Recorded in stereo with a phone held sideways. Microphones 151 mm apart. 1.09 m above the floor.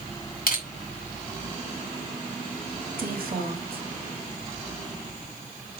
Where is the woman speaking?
75° right (ahead or behind), 3 m.